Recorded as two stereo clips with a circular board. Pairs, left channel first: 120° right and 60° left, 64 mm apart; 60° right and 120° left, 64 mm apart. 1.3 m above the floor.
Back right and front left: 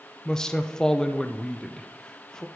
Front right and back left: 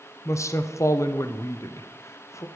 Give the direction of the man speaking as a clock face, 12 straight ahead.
1 o'clock.